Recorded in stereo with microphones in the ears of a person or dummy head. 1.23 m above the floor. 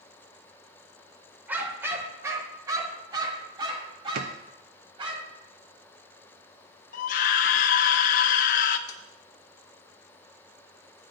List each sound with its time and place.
1.5 s a dog barking: 10° right (ahead or behind), 2 m; by 5.2 s 35° right (ahead or behind), 4 m
4.2 s a drawer: 50° right (ahead or behind), 0.7 m
6.9 s a scream: 40° left (ahead or behind), 0.5 m
8.9 s tapping: 20° left (ahead or behind), 3 m